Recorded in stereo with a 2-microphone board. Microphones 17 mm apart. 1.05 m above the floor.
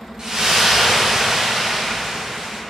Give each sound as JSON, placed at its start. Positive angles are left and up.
{"t": 0.2, "sound": "a splash", "side_deg": -40, "distance_m": 0.7}